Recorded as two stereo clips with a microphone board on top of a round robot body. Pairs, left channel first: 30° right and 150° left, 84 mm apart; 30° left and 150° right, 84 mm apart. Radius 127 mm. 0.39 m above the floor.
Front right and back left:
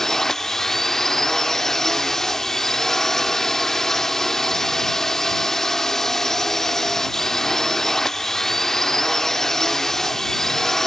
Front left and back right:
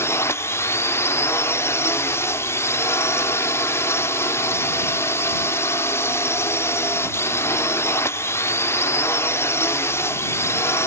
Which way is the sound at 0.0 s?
50° left.